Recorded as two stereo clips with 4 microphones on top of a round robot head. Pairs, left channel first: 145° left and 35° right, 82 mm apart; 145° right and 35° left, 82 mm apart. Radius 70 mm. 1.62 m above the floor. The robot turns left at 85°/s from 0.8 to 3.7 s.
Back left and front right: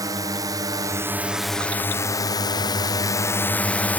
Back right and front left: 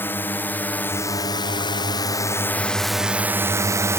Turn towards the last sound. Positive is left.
turn(degrees=80)